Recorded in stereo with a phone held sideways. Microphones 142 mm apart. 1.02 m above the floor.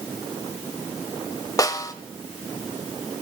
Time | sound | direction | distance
1.6 | a snare drum | 25° left (ahead or behind) | 1.0 m